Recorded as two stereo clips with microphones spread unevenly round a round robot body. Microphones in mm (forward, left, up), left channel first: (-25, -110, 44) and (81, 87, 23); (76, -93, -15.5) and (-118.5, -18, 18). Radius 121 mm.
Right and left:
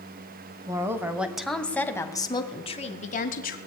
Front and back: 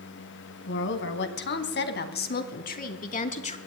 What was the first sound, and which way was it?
A woman speaking, 10° right.